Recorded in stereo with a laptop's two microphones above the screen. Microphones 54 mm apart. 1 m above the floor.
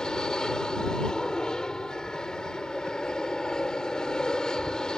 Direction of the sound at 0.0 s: 10° left (ahead or behind).